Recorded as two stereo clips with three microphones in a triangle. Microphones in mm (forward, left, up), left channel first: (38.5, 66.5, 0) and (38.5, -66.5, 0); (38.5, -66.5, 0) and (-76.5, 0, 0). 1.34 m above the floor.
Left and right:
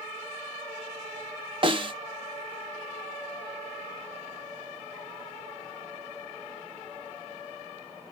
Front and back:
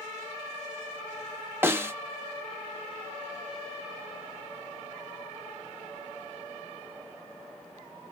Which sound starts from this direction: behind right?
A snare drum, at 1.6 s.